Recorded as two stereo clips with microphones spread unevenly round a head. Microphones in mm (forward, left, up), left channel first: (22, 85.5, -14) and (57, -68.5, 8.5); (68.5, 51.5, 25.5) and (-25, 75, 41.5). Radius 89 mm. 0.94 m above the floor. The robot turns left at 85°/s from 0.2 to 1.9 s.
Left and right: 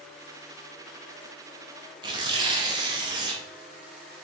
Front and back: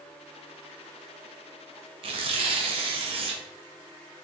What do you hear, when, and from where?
2.0 s tearing paper: 145° right, 0.7 m